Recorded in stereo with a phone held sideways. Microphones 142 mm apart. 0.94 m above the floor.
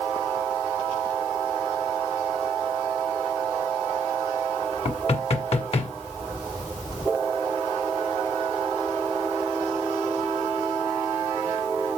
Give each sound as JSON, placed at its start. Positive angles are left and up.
{"t": 4.8, "sound": "knocking", "side_deg": 45, "distance_m": 1.7}